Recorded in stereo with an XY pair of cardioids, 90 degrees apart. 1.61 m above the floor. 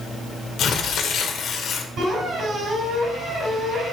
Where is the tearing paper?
65° left, 1.5 m.